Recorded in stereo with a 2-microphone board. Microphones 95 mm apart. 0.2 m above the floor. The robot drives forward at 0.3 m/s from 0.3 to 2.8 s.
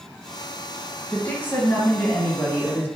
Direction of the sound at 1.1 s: 25° left (ahead or behind).